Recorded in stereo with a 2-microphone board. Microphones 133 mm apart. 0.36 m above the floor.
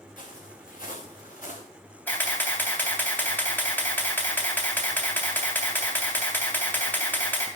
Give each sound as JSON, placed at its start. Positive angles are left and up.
{"t": 0.2, "sound": "footsteps", "side_deg": 80, "distance_m": 3.0}
{"t": 2.1, "sound": "a camera shutter", "side_deg": 15, "distance_m": 3.0}